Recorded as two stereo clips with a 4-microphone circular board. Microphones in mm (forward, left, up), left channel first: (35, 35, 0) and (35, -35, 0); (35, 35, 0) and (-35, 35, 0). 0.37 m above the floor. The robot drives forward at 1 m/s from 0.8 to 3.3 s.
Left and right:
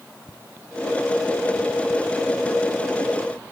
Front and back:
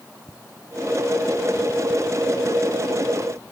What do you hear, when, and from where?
Only background noise.